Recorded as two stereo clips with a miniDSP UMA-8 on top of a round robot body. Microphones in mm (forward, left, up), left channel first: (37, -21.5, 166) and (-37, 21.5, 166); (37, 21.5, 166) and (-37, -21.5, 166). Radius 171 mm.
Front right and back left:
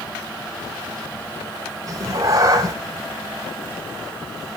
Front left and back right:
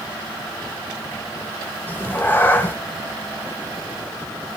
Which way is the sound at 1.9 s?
100° left.